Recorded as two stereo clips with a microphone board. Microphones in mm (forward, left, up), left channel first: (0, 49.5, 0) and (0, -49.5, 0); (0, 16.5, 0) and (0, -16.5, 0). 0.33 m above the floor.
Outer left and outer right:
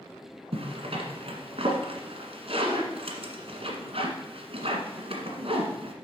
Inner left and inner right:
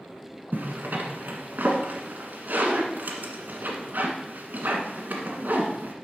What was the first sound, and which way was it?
A zipper, 75° right (ahead or behind).